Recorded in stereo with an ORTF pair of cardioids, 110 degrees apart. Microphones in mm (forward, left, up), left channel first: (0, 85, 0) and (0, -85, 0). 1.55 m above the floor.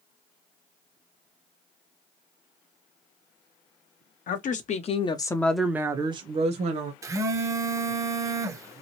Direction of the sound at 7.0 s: 20° right.